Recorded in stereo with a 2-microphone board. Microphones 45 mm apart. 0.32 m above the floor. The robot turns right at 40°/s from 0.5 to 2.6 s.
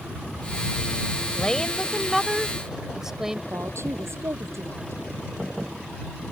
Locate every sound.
1.4 s a woman speaking: 150° left; by 3.4 s 160° right
3.5 s a woman speaking: 70° right (ahead or behind)